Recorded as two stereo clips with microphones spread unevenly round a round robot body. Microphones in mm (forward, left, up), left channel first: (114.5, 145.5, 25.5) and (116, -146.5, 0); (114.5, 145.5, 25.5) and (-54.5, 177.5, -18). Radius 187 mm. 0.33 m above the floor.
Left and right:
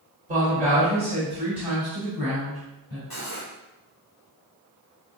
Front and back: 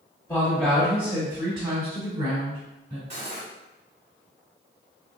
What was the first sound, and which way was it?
A woman speaking, 95° right.